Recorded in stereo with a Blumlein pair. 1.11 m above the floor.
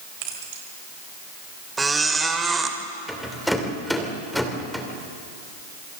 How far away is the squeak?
About 1.9 m.